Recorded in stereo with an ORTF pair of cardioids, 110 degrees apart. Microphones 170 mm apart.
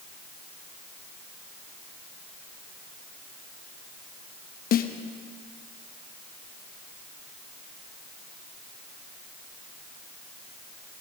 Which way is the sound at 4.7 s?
60° left.